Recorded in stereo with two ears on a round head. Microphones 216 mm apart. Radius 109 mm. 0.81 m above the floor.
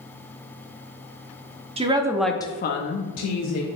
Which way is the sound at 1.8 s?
25° right (ahead or behind).